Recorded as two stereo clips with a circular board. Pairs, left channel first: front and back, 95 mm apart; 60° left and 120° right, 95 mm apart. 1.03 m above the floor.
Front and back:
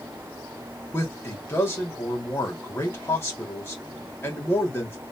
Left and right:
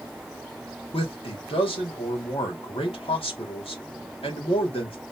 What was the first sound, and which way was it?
A man speaking, 60° left.